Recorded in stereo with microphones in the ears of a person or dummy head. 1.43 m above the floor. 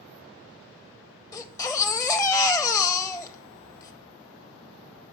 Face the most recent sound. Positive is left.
turn(degrees=15)  # may be behind; listen again after turning